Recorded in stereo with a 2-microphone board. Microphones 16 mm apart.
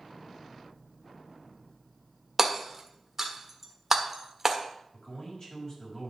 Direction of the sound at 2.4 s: 20° right (ahead or behind).